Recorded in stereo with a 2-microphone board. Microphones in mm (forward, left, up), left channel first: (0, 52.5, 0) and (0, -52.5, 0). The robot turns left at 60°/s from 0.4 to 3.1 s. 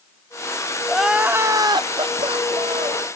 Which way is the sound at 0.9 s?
5° left.